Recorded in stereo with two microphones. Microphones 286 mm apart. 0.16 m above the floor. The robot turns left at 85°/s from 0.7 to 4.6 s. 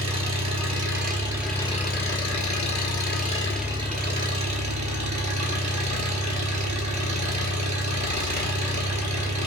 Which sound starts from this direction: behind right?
An engine running, at 0.0 s.